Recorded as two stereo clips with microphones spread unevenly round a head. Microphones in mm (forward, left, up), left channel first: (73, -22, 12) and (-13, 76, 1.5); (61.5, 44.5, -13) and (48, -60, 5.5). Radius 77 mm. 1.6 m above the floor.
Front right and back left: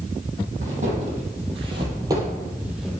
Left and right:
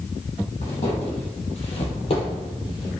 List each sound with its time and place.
0.6 s footsteps: 120° left, 3 m; by 2.9 s 40° left, 2.5 m